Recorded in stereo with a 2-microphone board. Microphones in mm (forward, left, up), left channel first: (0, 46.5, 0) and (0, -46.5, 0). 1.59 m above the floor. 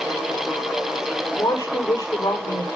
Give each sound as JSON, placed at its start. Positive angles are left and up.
{"t": 1.4, "sound": "a woman speaking", "side_deg": 35, "distance_m": 6.0}